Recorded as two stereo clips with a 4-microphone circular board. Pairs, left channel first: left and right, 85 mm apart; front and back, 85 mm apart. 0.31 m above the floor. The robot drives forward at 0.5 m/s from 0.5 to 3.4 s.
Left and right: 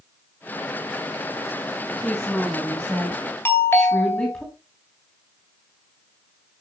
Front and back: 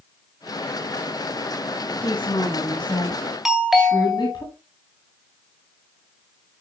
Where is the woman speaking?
15° left, 3 m.